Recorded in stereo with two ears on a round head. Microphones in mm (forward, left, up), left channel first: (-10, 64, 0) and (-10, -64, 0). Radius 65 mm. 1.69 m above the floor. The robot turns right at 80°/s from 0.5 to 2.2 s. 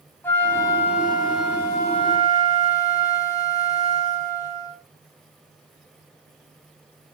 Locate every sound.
0.2 s a flute: 15° left, 3 m; by 4.8 s 150° left, 3 m